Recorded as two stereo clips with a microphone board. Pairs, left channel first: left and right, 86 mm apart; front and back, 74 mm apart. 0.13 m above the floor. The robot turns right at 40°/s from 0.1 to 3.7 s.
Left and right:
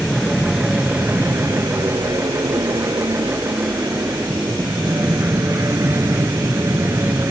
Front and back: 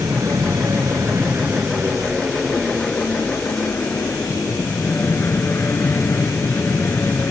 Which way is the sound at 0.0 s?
170° left.